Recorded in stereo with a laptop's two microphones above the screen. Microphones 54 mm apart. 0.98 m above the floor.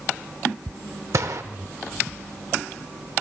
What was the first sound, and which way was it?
A gunshot, 65° right (ahead or behind).